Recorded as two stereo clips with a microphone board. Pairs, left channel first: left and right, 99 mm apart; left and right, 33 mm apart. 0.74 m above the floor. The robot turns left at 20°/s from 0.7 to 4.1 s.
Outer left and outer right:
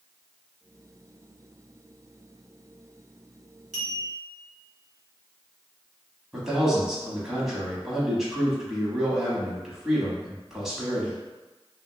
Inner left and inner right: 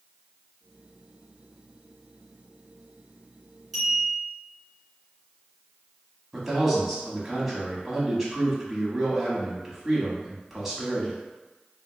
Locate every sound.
3.7 s a clink: 5° left (ahead or behind), 1.8 m; by 4.3 s 10° left (ahead or behind), 1.8 m
6.3 s a man speaking: 5° right (ahead or behind), 0.9 m